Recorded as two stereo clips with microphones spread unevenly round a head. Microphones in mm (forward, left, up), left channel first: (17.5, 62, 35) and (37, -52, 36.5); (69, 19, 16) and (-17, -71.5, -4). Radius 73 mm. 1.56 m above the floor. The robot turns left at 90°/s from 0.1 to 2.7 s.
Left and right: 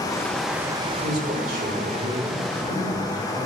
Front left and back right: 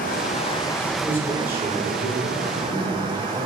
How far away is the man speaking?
About 4 m.